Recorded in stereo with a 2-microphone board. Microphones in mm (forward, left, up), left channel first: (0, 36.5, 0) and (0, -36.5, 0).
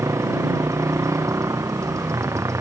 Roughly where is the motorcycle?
Right.